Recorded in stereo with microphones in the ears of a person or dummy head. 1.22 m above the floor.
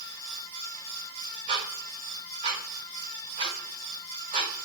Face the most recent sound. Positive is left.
turn(degrees=-30)  # may be behind; listen again after turning